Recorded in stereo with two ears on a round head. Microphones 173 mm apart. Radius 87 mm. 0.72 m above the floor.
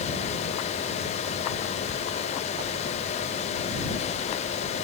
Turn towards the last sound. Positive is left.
No sound to turn to.